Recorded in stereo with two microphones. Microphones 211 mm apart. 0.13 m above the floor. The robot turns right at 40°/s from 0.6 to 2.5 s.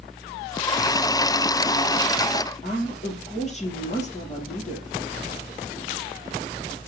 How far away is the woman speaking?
About 3 m.